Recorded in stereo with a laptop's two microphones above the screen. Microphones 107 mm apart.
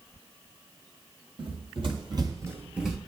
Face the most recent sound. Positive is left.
turn(degrees=5)  # may be behind; listen again after turning